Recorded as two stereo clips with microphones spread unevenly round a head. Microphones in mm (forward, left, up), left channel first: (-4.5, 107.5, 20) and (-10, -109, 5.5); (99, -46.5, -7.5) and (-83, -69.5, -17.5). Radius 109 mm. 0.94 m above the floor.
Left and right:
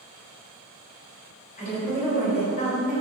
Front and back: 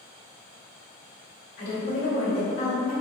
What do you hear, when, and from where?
1.6 s a woman speaking: 40° left, 1.9 m